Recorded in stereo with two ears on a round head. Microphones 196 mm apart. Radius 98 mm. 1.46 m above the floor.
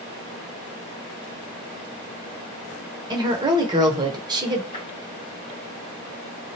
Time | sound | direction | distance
3.1 | a woman speaking | 20° right (ahead or behind) | 0.9 m
4.7 | tapping | 25° left (ahead or behind) | 1.4 m